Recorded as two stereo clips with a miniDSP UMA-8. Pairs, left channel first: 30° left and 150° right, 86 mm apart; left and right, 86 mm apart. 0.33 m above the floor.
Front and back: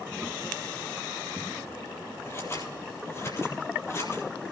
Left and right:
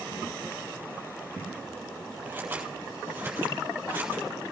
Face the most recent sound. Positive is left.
turn(degrees=-20)